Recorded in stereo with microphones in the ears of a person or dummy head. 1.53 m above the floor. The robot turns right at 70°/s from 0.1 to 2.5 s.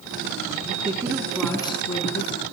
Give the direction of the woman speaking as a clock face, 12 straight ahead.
2 o'clock.